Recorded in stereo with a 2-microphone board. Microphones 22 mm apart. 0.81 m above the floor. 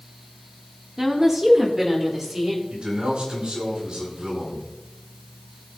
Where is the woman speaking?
20° right (ahead or behind), 1.7 m.